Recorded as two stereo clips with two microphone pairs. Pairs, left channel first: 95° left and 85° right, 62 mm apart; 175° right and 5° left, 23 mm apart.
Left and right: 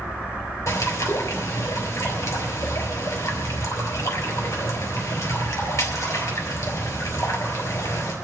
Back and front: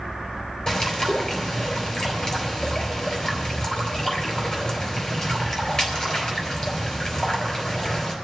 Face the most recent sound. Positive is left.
turn(degrees=135)